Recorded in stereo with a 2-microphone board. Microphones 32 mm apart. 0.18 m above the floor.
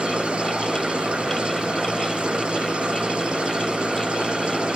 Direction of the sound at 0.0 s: 30° right (ahead or behind).